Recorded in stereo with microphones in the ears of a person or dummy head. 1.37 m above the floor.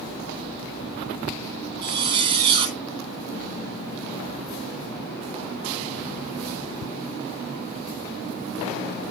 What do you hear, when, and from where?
1.8 s a zipper: 30° right (ahead or behind), 3 m